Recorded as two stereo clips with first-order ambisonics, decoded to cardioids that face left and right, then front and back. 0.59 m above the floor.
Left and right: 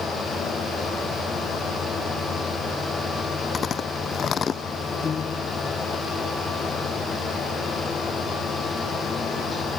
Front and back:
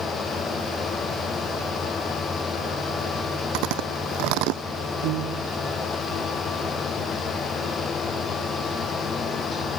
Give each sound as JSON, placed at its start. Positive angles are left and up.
{"t": 3.5, "sound": "chewing", "azimuth_deg": 155}
{"t": 5.0, "sound": "a piano", "azimuth_deg": 155}